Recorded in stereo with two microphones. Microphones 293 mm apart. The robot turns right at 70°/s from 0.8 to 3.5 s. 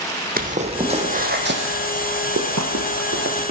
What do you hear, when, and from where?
0.4 s footsteps: 30° right (ahead or behind), 1.2 m